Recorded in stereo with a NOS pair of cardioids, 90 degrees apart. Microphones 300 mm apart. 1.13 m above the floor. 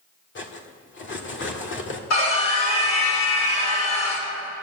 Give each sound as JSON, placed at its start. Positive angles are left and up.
{"t": 0.3, "sound": "cutlery clinking", "azimuth_deg": 40, "distance_m": 1.8}
{"t": 2.1, "sound": "a scream", "azimuth_deg": 55, "distance_m": 4.5}